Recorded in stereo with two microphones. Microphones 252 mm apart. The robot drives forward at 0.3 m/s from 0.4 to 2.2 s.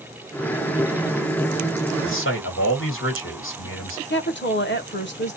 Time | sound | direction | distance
2.0 | a man speaking | 55° left (ahead or behind) | 1.5 m
4.1 | a woman speaking | 45° left (ahead or behind) | 0.9 m